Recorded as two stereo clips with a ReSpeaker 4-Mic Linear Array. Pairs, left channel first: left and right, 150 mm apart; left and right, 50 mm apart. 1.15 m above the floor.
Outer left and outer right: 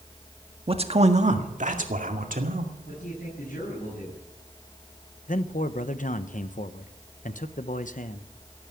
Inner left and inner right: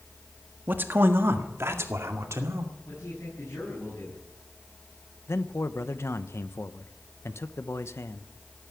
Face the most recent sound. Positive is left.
turn(degrees=60)  # may be behind; listen again after turning